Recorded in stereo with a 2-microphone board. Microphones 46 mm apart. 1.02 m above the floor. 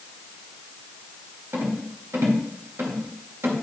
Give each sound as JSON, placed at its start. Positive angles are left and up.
{"t": 1.5, "sound": "a rattle", "side_deg": -55, "distance_m": 1.7}